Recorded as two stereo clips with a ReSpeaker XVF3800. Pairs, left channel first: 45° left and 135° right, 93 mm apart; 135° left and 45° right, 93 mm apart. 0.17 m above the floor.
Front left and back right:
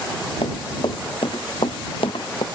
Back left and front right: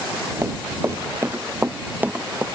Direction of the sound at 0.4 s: 20° left.